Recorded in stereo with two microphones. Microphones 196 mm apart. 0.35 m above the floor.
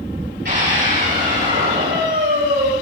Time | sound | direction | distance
0.5 | a scream | 60° right (ahead or behind) | 9 m